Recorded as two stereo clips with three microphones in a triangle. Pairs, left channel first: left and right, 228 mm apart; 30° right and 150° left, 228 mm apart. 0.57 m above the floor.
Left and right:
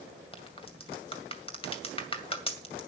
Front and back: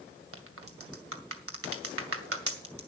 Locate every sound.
0.3 s a crack: 155° left, 2.0 m